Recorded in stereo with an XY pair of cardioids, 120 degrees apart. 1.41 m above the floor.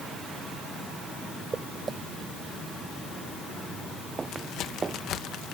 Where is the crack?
70° left.